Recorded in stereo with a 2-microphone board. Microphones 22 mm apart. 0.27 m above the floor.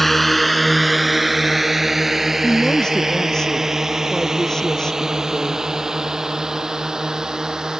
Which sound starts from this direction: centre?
A drone, at 0.0 s.